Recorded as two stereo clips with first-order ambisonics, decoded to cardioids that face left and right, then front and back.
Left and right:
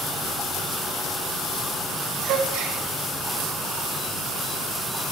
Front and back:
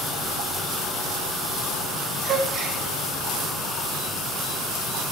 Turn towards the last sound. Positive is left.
turn(degrees=-120)